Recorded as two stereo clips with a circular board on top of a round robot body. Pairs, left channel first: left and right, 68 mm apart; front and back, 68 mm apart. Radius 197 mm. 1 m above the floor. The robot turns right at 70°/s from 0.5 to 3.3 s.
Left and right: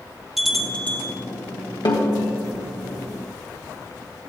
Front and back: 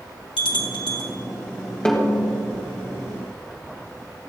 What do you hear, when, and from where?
0.4 s a bell: straight ahead, 1.6 m; by 1.1 s 45° left, 1.6 m
1.9 s a snare drum: 80° left, 2.5 m; by 2.3 s 105° left, 2.5 m